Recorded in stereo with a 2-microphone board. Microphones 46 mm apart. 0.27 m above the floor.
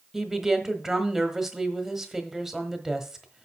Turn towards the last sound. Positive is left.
turn(degrees=-10)  # may be behind; listen again after turning